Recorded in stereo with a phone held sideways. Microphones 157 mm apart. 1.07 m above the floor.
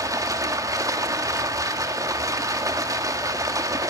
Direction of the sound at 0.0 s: 20° right (ahead or behind).